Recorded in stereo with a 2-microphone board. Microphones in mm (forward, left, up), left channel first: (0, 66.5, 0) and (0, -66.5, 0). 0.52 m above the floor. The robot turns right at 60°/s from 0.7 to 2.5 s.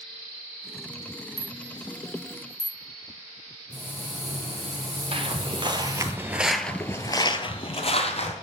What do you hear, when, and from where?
1.4 s a rattle: 30° right (ahead or behind), 1.3 m; by 2.8 s 35° left (ahead or behind), 1.3 m
3.7 s frying: 50° right (ahead or behind), 1.9 m
5.1 s footsteps: 45° right (ahead or behind), 0.9 m; by 8.3 s 55° left (ahead or behind), 1.0 m